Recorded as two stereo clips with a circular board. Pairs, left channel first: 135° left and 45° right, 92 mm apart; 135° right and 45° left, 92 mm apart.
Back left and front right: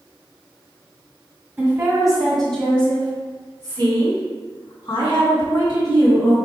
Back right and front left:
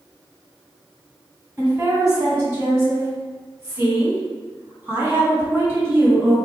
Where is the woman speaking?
5° left, 1.8 m; by 6.3 s 120° left, 4 m.